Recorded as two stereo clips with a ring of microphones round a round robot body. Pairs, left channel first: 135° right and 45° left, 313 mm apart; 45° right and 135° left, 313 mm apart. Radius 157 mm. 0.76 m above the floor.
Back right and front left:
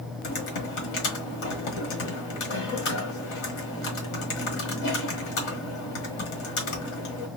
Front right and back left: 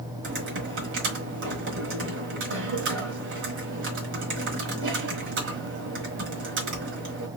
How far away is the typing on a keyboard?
About 1.4 m.